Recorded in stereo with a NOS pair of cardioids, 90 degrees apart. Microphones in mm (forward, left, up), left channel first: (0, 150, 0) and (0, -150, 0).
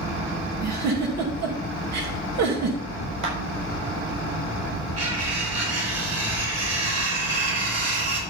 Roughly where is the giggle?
Ahead right.